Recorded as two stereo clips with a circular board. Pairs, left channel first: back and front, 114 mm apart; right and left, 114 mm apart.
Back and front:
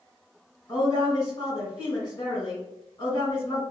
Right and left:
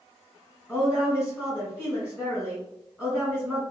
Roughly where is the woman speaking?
Behind.